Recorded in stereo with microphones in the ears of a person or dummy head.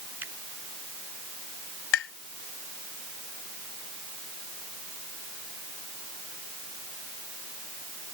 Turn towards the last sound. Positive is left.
turn(degrees=70)  # may be behind; listen again after turning